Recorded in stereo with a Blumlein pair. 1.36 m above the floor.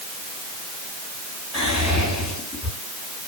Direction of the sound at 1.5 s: 20° left.